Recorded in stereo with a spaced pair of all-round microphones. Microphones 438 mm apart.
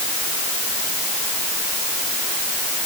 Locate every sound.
Only background noise.